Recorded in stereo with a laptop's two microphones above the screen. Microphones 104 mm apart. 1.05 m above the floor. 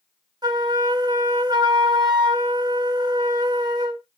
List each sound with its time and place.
0.4 s a flute: 40° right (ahead or behind), 0.8 m